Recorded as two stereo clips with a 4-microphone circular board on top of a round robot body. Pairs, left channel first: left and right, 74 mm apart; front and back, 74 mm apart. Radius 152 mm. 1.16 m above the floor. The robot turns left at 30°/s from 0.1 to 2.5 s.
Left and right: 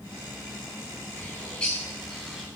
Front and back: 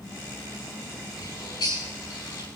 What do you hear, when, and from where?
1.2 s a bird: 30° left, 4.5 m; by 2.5 s 10° right, 4.5 m